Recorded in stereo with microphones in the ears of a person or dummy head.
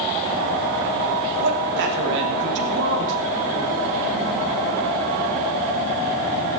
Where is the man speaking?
65° right (ahead or behind), 3 m.